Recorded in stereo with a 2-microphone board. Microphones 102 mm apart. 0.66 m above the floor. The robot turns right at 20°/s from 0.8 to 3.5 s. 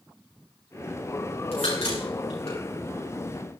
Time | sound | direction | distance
1.5 | a crack | 85° left | 10 m